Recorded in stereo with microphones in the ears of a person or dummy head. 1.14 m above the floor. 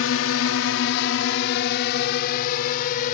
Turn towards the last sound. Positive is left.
turn(degrees=50)  # may be behind; listen again after turning